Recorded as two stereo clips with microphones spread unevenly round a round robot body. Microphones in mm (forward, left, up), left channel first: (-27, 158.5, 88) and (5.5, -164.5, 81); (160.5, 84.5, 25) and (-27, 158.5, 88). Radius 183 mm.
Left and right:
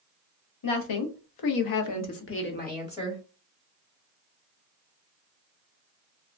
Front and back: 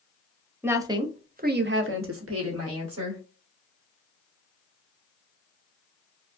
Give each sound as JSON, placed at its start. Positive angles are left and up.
{"t": 0.6, "sound": "a woman speaking", "azimuth_deg": 70, "distance_m": 1.1}